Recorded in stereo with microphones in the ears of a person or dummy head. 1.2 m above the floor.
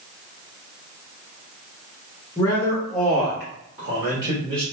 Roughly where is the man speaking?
Left.